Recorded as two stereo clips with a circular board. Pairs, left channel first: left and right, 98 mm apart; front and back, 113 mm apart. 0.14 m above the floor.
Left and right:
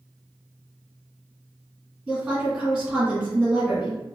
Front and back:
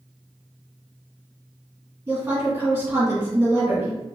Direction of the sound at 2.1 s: 150° right.